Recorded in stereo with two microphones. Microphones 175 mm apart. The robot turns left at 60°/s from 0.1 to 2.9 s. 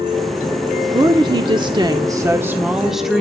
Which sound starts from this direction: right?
A woman speaking, at 0.9 s.